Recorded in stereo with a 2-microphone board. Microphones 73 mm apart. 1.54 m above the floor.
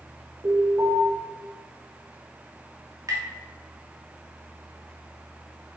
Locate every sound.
0.4 s an alarm: 60° right (ahead or behind), 4 m
3.1 s tapping: 60° right (ahead or behind), 3 m